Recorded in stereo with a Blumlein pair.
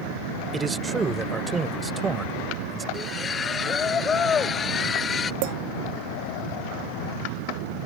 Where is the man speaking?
10° right.